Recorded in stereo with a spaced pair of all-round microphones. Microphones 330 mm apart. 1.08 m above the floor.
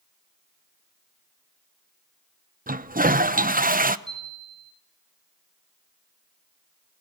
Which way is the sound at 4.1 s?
10° right (ahead or behind).